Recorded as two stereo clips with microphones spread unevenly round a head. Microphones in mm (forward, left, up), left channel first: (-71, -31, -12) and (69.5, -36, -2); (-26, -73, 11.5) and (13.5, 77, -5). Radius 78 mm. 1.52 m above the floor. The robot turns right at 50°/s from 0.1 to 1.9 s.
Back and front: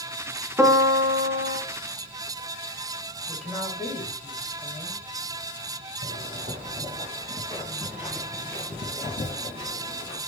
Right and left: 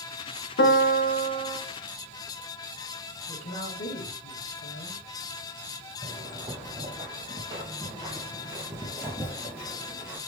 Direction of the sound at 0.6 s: 80° right.